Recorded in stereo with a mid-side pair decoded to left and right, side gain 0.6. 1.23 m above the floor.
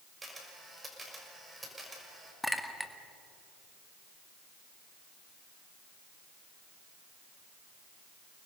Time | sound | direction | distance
0.2 | a camera shutter | 15° right | 5.5 m
2.4 | a clink | 5° left | 1.7 m